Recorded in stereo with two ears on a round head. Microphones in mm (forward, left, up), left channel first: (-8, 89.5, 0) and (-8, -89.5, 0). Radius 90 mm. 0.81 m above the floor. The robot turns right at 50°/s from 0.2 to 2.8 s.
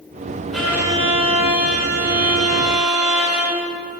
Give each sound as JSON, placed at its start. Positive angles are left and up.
{"t": 0.5, "sound": "a violin", "azimuth_deg": 180, "distance_m": 4.5}